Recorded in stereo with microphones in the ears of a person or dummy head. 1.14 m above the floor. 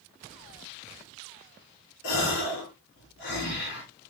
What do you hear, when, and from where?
2.0 s a gasp: 70° left (ahead or behind), 6 m